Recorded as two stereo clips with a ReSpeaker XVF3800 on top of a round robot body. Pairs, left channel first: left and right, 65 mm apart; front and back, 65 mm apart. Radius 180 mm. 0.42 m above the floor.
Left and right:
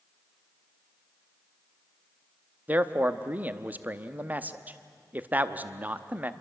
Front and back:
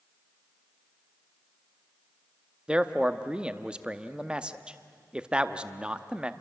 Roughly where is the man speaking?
Behind right.